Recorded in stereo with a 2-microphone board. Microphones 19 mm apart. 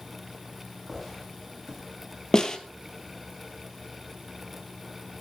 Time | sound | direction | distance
0.9 | footsteps | 5° left (ahead or behind) | 9.5 m
2.3 | a snare drum | 35° left (ahead or behind) | 1.5 m